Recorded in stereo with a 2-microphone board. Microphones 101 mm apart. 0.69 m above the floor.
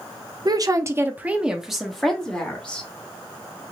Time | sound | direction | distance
0.5 | a woman speaking | 40° right (ahead or behind) | 0.6 m